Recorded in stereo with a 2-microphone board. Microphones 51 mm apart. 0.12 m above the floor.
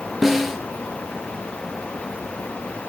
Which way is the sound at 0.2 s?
5° right (ahead or behind).